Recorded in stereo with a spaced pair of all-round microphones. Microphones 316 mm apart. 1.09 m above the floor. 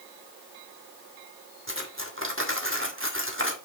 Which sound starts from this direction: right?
Cutlery clinking, at 1.7 s.